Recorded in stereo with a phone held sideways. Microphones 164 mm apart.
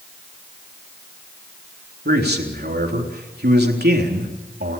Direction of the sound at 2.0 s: 90° right.